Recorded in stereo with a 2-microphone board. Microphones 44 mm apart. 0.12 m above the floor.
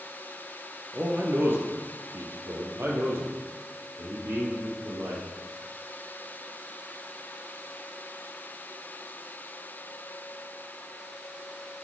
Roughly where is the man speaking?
Right.